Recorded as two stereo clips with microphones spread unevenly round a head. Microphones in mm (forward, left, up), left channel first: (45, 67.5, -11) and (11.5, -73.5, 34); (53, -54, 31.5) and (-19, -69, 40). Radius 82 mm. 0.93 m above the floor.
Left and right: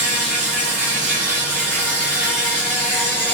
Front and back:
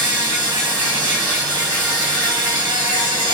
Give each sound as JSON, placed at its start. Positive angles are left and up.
{"t": 0.0, "sound": "an insect", "azimuth_deg": 165, "distance_m": 1.1}